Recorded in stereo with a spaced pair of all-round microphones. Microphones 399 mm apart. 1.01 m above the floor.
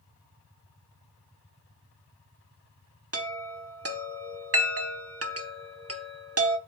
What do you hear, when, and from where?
3.1 s a chime: 35° right (ahead or behind), 1.0 m